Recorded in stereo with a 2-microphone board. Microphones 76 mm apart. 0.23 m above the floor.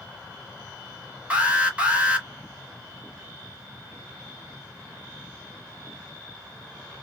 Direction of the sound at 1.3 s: 20° right (ahead or behind).